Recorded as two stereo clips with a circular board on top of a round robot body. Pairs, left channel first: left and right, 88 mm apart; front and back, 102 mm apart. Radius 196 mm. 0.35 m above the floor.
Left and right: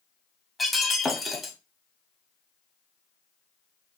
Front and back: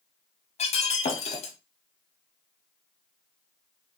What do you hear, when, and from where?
0.6 s breaking glass: straight ahead, 0.8 m